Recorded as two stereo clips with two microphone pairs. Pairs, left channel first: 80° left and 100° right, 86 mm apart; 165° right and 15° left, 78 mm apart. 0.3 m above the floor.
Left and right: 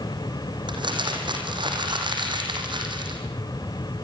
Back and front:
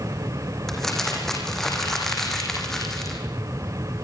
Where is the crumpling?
75° right, 4 m.